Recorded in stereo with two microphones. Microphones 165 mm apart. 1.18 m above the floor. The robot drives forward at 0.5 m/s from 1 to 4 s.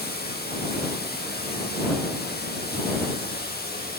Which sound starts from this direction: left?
Running water, at 0.0 s.